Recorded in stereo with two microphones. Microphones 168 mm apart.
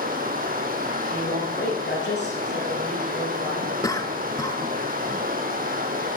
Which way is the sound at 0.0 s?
55° right (ahead or behind).